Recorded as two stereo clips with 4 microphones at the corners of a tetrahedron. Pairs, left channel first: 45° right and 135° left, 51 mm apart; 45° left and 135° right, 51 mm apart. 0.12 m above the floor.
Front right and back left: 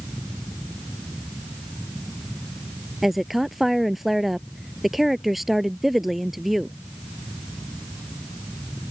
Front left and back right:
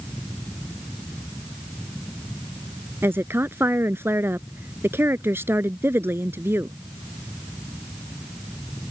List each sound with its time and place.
3.0 s a woman speaking: 140° right